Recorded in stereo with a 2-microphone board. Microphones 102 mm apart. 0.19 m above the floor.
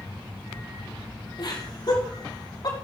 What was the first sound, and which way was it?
Laughter, 50° left (ahead or behind).